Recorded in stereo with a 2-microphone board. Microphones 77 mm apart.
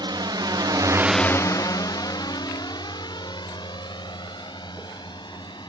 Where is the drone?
85° right; by 5.7 s 75° left (ahead or behind).